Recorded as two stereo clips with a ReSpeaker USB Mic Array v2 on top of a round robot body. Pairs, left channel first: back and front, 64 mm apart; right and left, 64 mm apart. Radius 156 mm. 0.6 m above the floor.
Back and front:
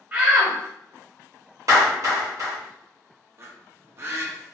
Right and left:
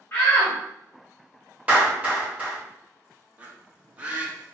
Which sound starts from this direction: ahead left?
A bird, at 3.4 s.